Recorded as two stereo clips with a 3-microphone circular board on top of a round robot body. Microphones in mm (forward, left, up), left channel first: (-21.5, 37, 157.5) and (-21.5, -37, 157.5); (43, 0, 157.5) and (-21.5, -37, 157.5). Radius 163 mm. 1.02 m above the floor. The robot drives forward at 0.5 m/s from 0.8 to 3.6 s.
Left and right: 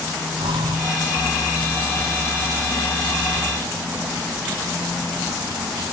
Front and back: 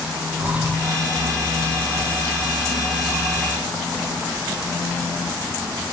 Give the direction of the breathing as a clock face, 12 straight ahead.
3 o'clock.